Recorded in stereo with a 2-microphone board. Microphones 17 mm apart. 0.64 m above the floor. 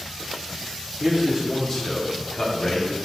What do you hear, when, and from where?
1.0 s a man speaking: 5° left (ahead or behind), 1.6 m; by 3.0 s 60° left (ahead or behind), 2 m